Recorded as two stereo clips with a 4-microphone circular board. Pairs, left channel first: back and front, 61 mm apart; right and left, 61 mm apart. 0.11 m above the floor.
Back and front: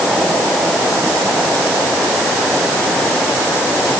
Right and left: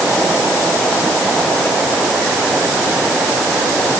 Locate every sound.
Only background noise.